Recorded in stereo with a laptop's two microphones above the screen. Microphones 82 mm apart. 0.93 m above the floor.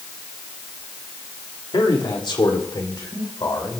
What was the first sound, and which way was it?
A man speaking, 70° left (ahead or behind).